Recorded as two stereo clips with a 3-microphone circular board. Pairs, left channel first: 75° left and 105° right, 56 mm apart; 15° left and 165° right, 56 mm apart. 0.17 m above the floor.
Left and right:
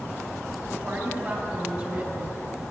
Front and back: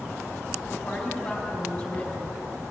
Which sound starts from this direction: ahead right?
A woman speaking, at 0.7 s.